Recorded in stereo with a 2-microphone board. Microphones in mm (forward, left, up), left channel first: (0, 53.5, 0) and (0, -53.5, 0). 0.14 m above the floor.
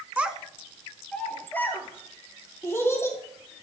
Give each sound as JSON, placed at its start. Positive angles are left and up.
{"t": 0.2, "sound": "a child speaking", "side_deg": -15, "distance_m": 0.7}